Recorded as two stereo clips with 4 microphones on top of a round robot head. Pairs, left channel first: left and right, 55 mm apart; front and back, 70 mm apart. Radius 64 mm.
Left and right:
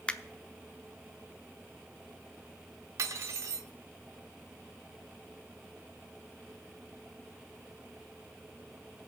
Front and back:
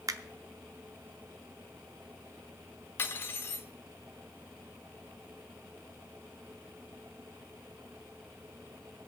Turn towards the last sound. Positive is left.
turn(degrees=-60)